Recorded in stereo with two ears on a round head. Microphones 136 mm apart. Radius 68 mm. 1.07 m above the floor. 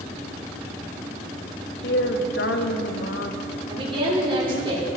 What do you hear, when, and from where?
1.8 s a woman speaking: 70° left (ahead or behind), 1.3 m
3.7 s a woman speaking: 35° right (ahead or behind), 3 m